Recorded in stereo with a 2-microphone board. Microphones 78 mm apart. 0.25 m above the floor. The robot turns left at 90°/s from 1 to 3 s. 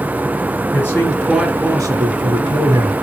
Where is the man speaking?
30° left, 3.5 m; by 2.9 s 145° right, 3.5 m.